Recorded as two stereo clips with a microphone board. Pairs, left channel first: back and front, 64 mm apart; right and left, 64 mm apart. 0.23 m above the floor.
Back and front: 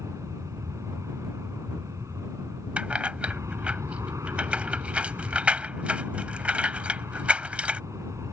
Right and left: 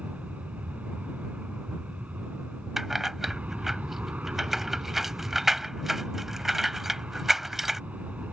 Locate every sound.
0.0 s an aircraft: 25° left
2.8 s keys jangling: 10° left